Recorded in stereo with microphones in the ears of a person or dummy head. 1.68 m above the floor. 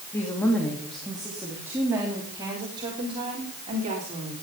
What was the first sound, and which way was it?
A woman speaking, 15° left (ahead or behind).